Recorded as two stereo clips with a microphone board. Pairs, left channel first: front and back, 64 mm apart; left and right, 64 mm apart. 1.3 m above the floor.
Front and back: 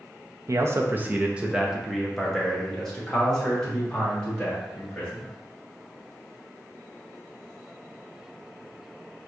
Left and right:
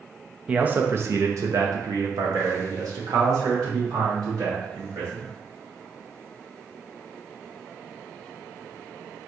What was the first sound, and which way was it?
A man speaking, 155° right.